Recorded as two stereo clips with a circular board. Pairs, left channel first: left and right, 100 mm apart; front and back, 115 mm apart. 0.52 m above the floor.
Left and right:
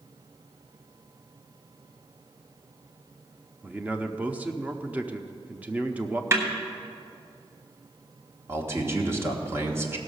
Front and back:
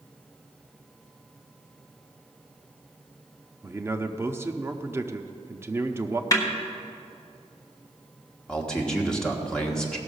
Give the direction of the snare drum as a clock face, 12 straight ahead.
1 o'clock.